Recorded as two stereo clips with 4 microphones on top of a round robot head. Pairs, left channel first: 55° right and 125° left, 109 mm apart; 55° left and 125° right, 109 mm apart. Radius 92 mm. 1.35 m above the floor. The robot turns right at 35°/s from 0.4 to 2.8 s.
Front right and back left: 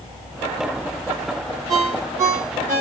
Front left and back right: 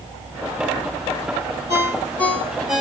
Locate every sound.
1.7 s a ringtone: 110° left, 2.5 m; by 2.8 s 145° left, 2.5 m